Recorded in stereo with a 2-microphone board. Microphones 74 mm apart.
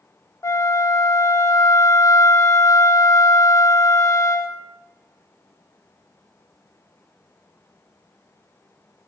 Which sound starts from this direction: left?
A flute, at 0.4 s.